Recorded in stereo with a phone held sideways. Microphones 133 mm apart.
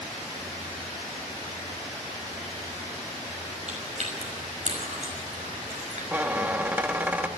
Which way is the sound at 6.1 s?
10° right (ahead or behind).